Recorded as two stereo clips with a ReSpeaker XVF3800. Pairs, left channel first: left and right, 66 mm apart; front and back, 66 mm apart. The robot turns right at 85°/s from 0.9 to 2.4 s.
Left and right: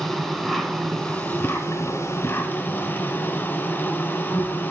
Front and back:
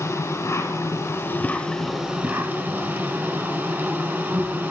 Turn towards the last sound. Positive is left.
turn(degrees=130)